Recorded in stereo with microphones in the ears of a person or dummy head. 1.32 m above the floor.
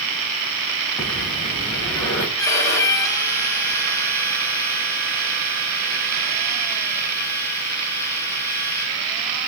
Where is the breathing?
10° left (ahead or behind), 3.5 m.